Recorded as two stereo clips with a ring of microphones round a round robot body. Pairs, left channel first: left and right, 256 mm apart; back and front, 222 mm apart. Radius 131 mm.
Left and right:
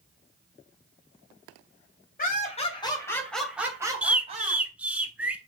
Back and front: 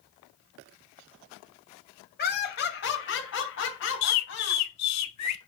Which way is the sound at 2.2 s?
145° left.